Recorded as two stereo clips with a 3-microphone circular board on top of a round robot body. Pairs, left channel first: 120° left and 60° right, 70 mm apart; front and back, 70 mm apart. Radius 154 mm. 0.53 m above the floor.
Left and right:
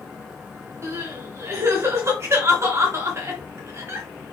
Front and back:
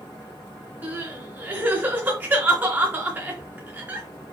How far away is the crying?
About 4 m.